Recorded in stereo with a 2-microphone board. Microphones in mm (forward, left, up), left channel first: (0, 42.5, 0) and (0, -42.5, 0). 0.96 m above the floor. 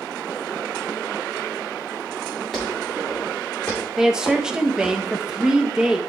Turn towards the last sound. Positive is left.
turn(degrees=-10)  # may be behind; listen again after turning